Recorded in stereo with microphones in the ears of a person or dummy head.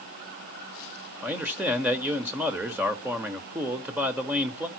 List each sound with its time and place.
1.2 s a man speaking: 5° right (ahead or behind), 1.6 m